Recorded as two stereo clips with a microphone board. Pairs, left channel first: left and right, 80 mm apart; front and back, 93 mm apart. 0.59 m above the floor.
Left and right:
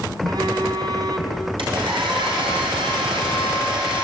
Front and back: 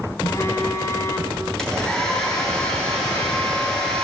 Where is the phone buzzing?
60° right, 2 m.